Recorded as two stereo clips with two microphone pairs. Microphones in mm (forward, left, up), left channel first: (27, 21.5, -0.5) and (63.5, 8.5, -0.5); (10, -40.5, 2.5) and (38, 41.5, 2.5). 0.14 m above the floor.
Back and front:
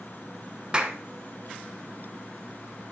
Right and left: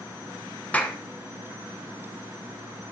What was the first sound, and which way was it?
A clap, 55° right.